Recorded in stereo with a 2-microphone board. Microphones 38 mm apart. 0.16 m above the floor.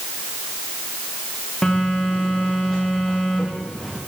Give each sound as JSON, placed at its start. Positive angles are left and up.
{"t": 1.6, "sound": "a phone buzzing", "side_deg": 10, "distance_m": 3.5}